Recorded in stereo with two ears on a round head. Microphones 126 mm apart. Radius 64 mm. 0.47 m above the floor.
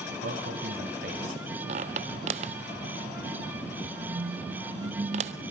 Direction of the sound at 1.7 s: 50° right (ahead or behind).